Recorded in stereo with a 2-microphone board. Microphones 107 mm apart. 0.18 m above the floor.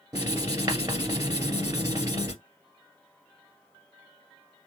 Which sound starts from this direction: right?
Writing, at 0.1 s.